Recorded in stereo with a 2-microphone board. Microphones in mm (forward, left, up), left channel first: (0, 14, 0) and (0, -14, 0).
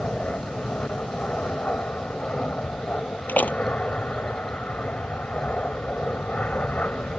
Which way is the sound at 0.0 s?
60° left (ahead or behind).